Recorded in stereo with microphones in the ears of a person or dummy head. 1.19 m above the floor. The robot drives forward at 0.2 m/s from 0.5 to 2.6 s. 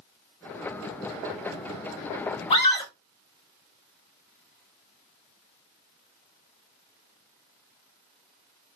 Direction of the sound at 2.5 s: 30° left (ahead or behind).